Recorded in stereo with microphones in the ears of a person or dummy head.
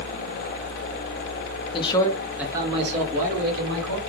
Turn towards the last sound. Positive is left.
turn(degrees=-65)  # may be behind; listen again after turning